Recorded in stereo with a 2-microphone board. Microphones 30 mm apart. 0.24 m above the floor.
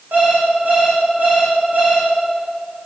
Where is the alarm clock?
80° right, 10 m.